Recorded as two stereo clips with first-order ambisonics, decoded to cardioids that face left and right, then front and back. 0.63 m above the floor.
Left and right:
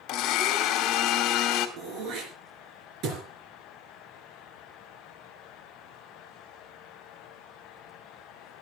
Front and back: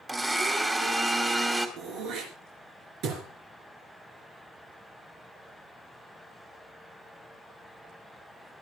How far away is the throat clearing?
About 4 m.